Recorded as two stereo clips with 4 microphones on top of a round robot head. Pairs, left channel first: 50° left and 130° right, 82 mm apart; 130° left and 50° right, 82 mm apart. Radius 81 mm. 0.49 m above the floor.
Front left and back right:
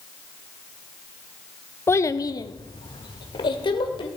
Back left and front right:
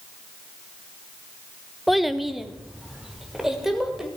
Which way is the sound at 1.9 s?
40° left.